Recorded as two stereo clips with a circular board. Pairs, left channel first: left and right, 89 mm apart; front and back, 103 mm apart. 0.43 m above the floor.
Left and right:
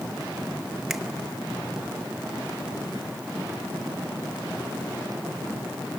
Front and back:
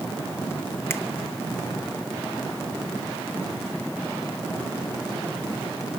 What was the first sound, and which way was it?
A finger snap, 10° right.